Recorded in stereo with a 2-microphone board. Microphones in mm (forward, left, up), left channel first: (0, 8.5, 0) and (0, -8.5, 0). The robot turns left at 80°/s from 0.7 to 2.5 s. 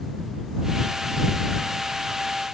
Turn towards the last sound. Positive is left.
No sound to turn to.